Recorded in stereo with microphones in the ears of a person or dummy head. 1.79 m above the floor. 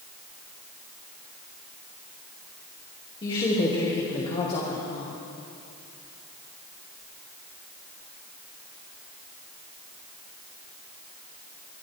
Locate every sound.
3.2 s a woman speaking: 30° left (ahead or behind), 3 m; by 5.2 s 35° left (ahead or behind), 1.5 m